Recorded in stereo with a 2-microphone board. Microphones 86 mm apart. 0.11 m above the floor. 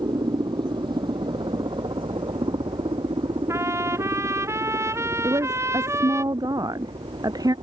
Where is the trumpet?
35° right (ahead or behind).